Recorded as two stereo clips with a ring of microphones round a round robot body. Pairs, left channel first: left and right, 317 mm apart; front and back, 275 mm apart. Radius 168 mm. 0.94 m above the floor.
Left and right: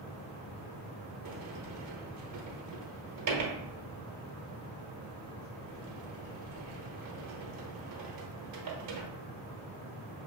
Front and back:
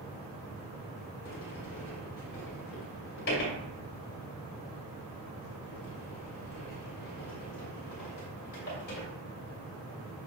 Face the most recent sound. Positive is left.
turn(degrees=-55)